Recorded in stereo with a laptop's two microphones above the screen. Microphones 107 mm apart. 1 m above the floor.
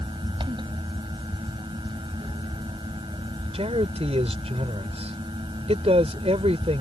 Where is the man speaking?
70° right (ahead or behind).